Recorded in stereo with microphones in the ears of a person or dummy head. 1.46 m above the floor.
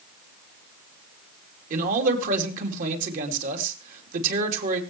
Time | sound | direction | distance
1.7 | a man speaking | 45° right (ahead or behind) | 3 m